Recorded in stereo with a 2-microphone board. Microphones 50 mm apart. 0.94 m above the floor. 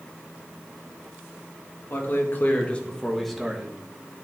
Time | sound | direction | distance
1.9 | a man speaking | 55° left (ahead or behind) | 1.7 m